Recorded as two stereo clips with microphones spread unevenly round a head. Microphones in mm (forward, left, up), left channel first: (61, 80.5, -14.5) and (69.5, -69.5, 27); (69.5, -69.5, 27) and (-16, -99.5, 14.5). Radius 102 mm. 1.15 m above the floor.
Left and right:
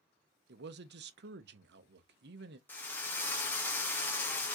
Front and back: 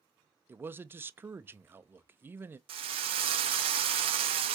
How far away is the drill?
About 0.6 m.